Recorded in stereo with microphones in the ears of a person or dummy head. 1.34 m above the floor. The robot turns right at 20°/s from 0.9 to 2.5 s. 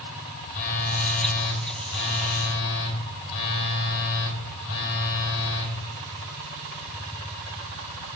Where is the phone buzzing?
50° left, 1.1 m; by 5.8 s 80° left, 1.1 m.